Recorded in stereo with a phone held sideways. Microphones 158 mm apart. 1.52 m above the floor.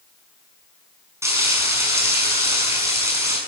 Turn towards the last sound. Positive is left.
turn(degrees=-15)  # may be behind; listen again after turning